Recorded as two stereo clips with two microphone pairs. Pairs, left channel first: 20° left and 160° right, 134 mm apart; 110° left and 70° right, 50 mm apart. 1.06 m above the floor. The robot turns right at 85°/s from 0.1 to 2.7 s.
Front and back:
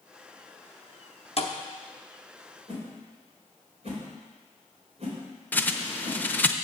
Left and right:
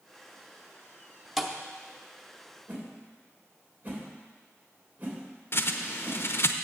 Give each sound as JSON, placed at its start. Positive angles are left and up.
{"t": 1.4, "sound": "a thud", "azimuth_deg": 10, "distance_m": 0.8}
{"t": 2.7, "sound": "a whoosh", "azimuth_deg": -125, "distance_m": 3.0}
{"t": 5.5, "sound": "a bird", "azimuth_deg": 95, "distance_m": 0.6}